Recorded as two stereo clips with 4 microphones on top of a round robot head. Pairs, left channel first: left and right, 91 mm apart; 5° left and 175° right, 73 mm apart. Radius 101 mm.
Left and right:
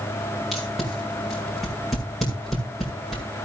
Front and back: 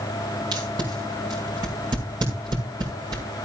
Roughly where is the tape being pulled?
Behind.